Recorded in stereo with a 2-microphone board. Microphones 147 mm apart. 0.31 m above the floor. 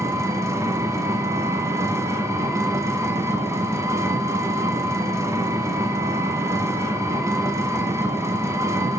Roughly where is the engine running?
Right.